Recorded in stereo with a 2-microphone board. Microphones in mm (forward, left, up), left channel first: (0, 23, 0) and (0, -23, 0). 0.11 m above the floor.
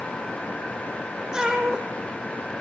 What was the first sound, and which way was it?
A cat meowing, 20° right (ahead or behind).